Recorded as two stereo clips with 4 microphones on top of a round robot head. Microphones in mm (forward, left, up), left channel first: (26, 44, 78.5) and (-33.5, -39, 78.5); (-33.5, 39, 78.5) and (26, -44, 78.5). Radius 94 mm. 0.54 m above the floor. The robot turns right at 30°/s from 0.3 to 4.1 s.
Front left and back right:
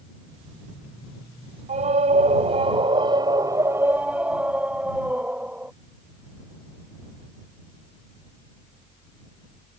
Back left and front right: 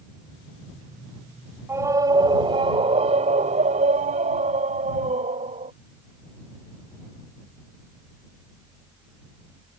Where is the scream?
120° right; by 5.7 s 50° right.